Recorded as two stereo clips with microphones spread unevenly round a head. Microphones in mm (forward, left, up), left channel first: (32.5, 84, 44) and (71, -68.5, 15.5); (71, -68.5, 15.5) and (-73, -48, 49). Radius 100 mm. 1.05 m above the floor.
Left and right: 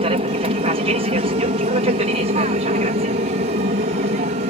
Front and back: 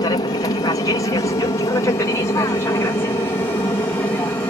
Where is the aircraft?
50° right; by 4.5 s 70° right.